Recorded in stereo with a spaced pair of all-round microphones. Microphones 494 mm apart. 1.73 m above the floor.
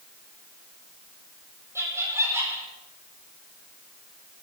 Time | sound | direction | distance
1.8 | laughter | 5° right (ahead or behind) | 4.5 m